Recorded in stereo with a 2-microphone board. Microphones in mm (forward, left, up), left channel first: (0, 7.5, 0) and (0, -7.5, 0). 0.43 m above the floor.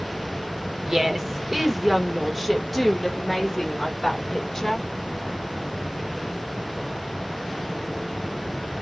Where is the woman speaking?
30° right (ahead or behind), 1.5 m; by 4.9 s 30° left (ahead or behind), 2 m.